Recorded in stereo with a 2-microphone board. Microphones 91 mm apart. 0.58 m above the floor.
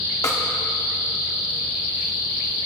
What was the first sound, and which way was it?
A snare drum, 40° left (ahead or behind).